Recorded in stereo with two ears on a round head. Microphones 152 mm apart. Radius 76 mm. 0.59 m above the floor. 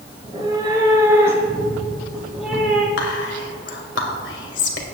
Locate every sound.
0.2 s a cat meowing: 30° right (ahead or behind), 3.5 m; by 2.9 s 5° left (ahead or behind), 3.5 m
3.0 s whispering: 75° left (ahead or behind), 2 m